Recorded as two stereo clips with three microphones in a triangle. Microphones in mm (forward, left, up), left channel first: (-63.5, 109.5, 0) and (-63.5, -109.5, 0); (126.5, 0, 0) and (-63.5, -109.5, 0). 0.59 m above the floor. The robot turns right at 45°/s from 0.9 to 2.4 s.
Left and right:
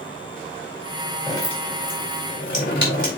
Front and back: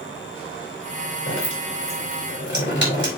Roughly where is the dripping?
Ahead.